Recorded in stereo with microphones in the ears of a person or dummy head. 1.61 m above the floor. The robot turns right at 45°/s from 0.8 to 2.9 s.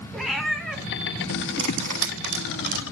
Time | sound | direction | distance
0.1 | a cat meowing | 5° left (ahead or behind) | 1.7 m
1.6 | cutlery clinking | 65° right (ahead or behind) | 3 m